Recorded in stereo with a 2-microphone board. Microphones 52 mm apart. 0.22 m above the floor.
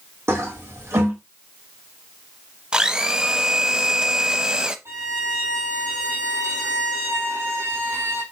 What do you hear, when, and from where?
0.3 s a toilet flushing: 65° right (ahead or behind), 2 m
2.7 s a blender: 15° right (ahead or behind), 0.6 m
4.8 s a violin: 80° right, 3.5 m